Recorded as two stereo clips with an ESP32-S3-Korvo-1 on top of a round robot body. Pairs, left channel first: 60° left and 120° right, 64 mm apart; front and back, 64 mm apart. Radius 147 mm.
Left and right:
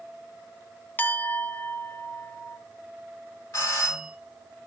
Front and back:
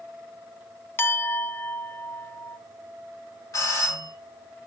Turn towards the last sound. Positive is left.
turn(degrees=15)